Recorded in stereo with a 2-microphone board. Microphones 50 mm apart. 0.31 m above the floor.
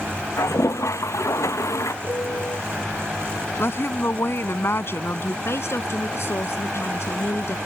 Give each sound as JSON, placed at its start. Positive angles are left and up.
{"t": 0.4, "sound": "a toilet flushing", "side_deg": 80}
{"t": 2.0, "sound": "a piano", "side_deg": 65}
{"t": 3.6, "sound": "a woman speaking", "side_deg": 55}
{"t": 5.5, "sound": "a woman speaking", "side_deg": 60}